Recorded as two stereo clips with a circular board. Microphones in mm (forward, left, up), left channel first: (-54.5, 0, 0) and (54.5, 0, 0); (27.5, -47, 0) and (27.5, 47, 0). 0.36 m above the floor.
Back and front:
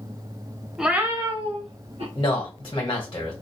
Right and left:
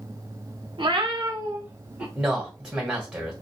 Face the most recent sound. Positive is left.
turn(degrees=160)